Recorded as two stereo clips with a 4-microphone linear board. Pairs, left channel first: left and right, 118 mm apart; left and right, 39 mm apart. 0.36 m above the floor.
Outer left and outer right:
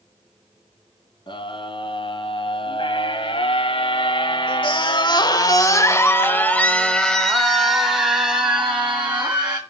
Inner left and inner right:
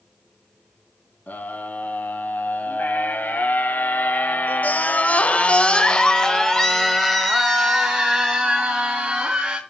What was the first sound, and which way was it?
A scream, 50° left (ahead or behind).